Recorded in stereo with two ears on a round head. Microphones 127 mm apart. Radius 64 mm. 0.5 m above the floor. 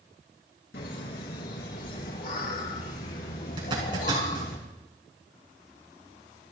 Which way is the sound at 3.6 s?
35° right (ahead or behind).